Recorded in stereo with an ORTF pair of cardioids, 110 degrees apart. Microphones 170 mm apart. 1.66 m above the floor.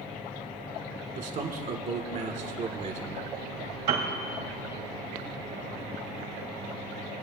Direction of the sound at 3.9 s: 70° right.